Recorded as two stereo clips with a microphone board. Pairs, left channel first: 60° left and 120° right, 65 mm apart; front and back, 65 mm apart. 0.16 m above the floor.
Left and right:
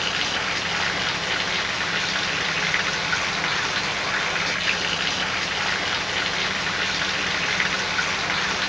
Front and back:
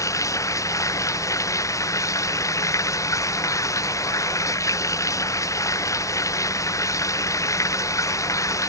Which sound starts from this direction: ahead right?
Running water, at 0.0 s.